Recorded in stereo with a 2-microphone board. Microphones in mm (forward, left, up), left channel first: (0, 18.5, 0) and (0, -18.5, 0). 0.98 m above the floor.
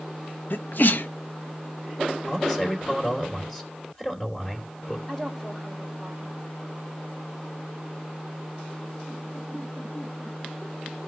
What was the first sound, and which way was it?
A sneeze, 60° left (ahead or behind).